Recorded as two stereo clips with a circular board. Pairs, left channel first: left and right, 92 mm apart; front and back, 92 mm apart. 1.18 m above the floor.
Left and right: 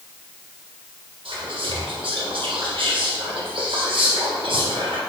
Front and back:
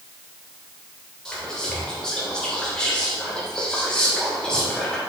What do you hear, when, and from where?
1.2 s whispering: 80° right, 1.4 m